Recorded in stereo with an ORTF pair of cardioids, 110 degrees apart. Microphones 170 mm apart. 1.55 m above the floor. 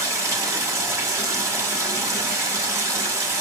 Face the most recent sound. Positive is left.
turn(degrees=-20)